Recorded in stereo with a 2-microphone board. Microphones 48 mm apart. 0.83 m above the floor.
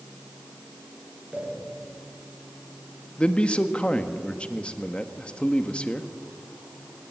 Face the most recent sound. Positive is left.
turn(degrees=20)  # may be behind; listen again after turning